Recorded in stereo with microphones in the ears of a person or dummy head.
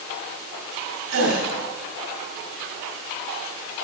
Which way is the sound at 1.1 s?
75° right (ahead or behind).